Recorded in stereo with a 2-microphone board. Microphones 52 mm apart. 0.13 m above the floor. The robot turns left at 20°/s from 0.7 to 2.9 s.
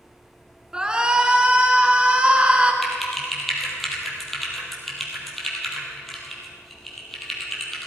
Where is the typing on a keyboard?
Centre (ahead or behind), 3 m; by 7.9 s 5° left (ahead or behind), 3 m.